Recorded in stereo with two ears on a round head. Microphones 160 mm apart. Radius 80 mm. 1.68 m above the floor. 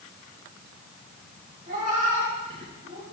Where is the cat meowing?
45° right (ahead or behind), 5 m.